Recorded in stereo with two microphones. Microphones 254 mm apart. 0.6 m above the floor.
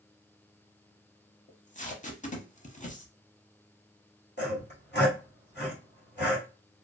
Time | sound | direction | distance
1.5 | tape being pulled | 30° left (ahead or behind) | 0.6 m
4.4 | sawing | 40° left (ahead or behind) | 1.7 m